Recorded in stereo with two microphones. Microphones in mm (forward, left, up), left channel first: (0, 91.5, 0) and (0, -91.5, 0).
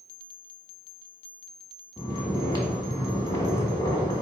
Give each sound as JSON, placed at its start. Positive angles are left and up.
{"t": 2.0, "sound": "snoring", "side_deg": 20, "distance_m": 1.0}